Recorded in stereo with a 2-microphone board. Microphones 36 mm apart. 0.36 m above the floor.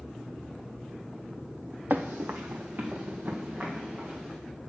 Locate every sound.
1.9 s running footsteps: 55° right (ahead or behind), 0.7 m; by 4.3 s 40° right (ahead or behind), 4 m